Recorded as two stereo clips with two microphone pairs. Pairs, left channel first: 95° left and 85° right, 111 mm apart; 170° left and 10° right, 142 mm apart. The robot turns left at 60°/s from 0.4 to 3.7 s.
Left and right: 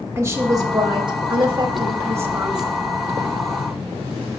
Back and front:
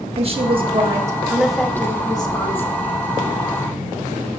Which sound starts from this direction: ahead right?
A woman speaking, at 0.2 s.